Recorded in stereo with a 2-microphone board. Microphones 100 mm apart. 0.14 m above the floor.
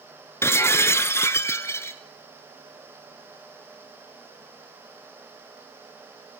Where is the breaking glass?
25° left (ahead or behind), 1.0 m.